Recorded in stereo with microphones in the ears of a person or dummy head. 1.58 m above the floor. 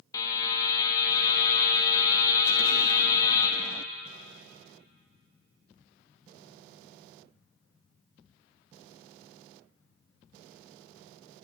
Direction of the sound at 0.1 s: 25° left (ahead or behind).